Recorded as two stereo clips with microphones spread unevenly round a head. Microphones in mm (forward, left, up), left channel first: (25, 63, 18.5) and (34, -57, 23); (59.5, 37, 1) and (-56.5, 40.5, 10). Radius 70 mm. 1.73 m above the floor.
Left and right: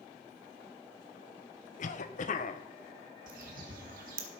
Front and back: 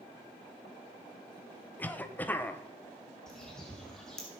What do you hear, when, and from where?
1.8 s a cough: 75° left, 1.4 m
3.3 s a bird: 90° right, 1.8 m